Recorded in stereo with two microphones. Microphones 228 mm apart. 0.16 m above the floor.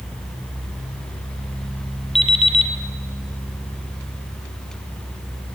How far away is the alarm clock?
About 2 m.